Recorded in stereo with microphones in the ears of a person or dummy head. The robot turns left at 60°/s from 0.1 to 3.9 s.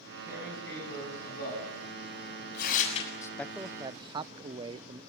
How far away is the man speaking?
About 0.7 m.